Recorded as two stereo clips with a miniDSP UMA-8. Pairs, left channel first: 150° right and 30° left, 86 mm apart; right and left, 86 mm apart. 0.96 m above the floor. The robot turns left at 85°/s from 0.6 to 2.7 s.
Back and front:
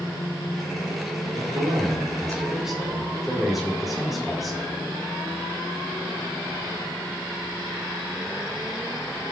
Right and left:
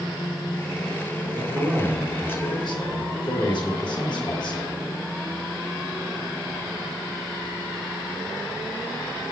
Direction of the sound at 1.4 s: 55° left.